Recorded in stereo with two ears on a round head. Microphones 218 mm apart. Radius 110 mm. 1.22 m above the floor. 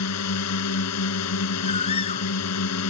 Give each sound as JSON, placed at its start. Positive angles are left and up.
{"t": 0.0, "sound": "a drone", "side_deg": 75}
{"t": 1.6, "sound": "a bird", "side_deg": 25}